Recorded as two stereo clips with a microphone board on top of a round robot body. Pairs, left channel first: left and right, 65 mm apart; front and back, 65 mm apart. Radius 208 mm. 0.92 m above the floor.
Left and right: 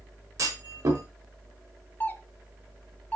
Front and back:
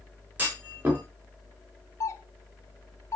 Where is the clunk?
115° right, 4 m.